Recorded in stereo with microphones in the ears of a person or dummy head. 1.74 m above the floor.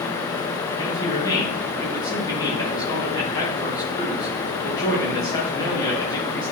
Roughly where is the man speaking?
Left.